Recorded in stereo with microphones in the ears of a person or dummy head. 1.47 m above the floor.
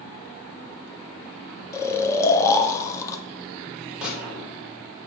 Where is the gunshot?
5° right (ahead or behind), 3.5 m.